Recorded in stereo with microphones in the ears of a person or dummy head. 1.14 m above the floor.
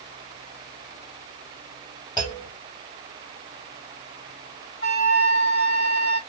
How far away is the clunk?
About 1.4 m.